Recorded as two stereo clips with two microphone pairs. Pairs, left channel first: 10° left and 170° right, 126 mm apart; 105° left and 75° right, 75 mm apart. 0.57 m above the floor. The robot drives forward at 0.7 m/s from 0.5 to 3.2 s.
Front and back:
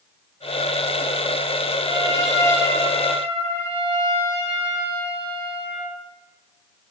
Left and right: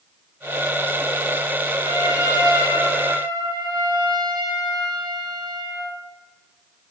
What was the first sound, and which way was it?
A trumpet, 55° right.